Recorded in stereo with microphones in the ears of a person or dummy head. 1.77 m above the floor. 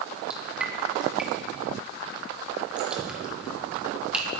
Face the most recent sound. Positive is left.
turn(degrees=-5)  # may be behind; listen again after turning